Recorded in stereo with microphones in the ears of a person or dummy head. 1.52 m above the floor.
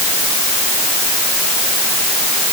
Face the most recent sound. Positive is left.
No sound to turn to.